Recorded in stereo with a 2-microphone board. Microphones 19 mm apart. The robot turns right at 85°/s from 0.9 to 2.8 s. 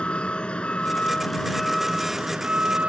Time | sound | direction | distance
0.0 | a vehicle | 100° left | ?